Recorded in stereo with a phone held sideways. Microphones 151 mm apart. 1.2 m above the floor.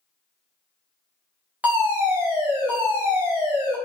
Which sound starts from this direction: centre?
A fire alarm, at 1.6 s.